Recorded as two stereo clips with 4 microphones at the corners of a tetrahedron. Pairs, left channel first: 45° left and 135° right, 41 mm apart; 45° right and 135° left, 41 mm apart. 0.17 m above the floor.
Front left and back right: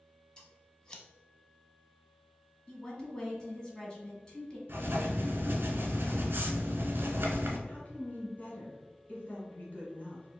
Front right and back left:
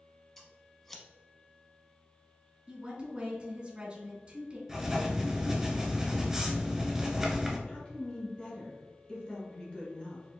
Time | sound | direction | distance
0.4 | scissors | 15° left | 0.6 m
2.7 | a woman speaking | 100° left | 1.2 m
4.7 | writing | 150° right | 0.7 m
7.7 | a woman speaking | 10° left | 1.5 m